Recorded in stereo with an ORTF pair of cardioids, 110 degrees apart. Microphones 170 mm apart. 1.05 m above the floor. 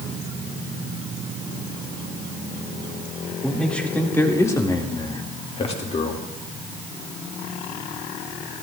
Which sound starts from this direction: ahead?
A man speaking, at 3.4 s.